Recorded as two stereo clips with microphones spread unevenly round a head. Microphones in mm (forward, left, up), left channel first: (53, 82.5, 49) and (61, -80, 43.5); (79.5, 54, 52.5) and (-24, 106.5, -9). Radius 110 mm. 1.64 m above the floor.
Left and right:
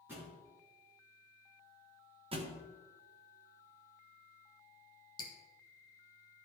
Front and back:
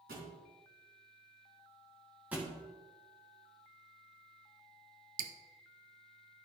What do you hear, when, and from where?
0.1 s a thud: 170° right, 3 m
2.3 s a thud: 75° right, 1.1 m
5.2 s dripping: 145° left, 0.7 m